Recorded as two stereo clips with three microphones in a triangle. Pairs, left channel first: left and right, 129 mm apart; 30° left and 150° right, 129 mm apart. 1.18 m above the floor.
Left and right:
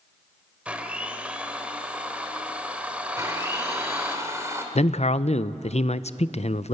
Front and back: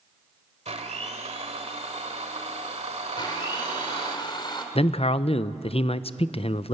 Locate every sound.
0.7 s a blender: 170° right, 1.6 m
3.2 s a blender: 20° right, 2.5 m
4.8 s a man speaking: 65° left, 0.5 m